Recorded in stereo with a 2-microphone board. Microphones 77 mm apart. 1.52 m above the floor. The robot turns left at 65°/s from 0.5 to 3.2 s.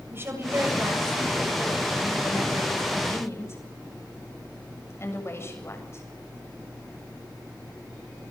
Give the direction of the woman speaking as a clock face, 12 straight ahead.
5 o'clock.